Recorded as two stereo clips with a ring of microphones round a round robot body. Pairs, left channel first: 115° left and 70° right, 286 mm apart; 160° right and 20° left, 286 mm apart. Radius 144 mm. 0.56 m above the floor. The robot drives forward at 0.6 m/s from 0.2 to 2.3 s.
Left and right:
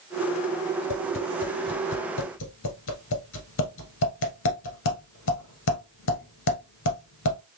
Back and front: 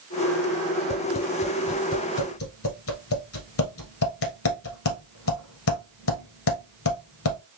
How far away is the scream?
I don't hear a scream.